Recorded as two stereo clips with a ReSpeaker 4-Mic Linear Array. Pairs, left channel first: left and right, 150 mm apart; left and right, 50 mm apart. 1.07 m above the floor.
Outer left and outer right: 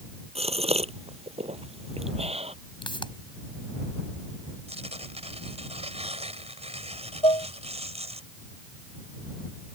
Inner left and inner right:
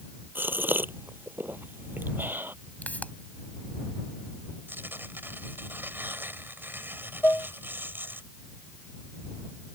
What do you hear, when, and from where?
0.3 s a gasp: 45° right (ahead or behind)
2.8 s a pop: 35° left (ahead or behind)
4.7 s tearing paper: 45° right (ahead or behind)
7.2 s dishes clattering: 40° left (ahead or behind)